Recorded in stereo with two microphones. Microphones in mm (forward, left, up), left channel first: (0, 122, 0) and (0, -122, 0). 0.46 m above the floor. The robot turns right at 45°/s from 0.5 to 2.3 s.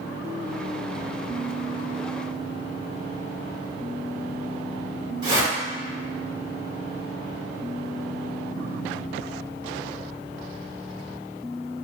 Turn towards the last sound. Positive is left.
turn(degrees=-20)  # may be behind; listen again after turning